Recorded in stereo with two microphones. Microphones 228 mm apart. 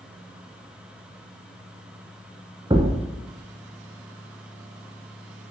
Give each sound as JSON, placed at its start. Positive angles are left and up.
{"t": 2.7, "sound": "a thud", "side_deg": -20, "distance_m": 1.0}